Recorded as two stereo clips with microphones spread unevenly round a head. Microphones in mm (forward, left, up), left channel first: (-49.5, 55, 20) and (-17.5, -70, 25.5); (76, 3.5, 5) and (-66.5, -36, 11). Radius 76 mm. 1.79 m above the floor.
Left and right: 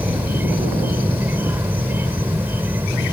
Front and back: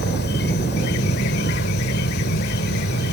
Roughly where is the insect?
Ahead.